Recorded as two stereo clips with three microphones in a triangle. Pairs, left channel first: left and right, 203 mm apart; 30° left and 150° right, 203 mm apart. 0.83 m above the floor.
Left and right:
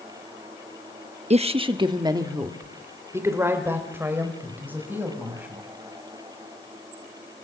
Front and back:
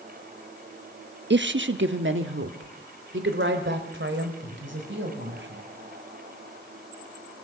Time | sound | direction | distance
1.3 | a woman speaking | 145° right | 0.9 m